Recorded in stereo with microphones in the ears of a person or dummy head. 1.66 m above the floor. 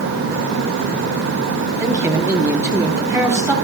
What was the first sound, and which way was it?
A man speaking, 15° right (ahead or behind).